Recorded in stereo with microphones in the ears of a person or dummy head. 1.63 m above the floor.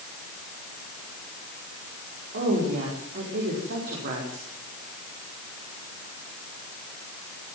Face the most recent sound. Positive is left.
turn(degrees=-45)  # may be behind; listen again after turning